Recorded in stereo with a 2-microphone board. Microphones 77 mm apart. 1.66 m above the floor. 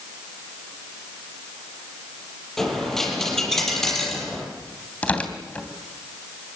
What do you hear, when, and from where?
2.6 s a dropped coin: 5° left (ahead or behind), 6 m
5.0 s tearing paper: 15° left (ahead or behind), 3 m